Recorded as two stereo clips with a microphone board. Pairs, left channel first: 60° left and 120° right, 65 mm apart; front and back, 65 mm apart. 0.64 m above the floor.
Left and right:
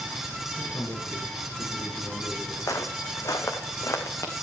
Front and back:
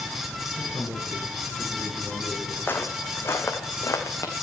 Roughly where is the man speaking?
Behind left.